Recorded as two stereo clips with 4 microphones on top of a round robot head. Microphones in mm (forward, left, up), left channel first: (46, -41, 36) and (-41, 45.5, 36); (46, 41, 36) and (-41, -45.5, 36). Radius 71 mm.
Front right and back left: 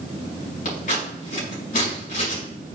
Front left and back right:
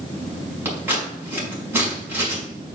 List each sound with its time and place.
0.7 s scissors: 60° right, 5 m